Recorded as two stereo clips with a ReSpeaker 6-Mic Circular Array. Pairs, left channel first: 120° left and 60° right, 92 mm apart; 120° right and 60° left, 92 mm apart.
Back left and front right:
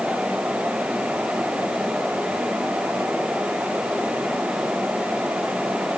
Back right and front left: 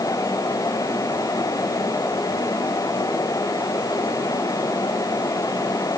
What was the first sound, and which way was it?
Only background noise.